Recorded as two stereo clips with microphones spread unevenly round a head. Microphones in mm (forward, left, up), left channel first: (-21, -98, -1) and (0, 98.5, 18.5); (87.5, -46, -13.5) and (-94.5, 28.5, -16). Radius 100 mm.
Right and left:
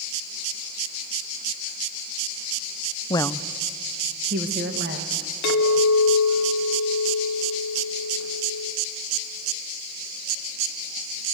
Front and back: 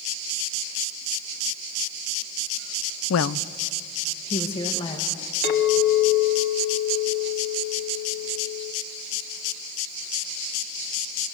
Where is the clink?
60° right, 1.6 m.